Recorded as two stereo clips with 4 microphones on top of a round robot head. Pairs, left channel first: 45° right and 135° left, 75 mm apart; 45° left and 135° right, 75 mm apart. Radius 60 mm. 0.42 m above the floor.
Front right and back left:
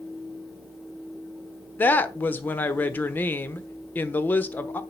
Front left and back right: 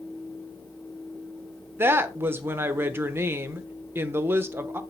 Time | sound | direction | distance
1.8 | a woman speaking | 95° right | 1.0 m